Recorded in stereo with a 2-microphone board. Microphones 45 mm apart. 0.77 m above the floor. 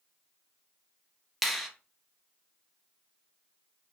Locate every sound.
1.4 s a finger snap: centre (ahead or behind), 0.6 m